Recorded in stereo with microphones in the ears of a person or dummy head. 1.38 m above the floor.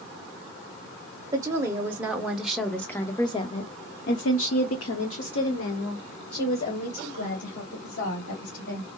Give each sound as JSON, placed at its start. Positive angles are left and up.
{"t": 1.3, "sound": "a woman speaking", "side_deg": -15, "distance_m": 1.5}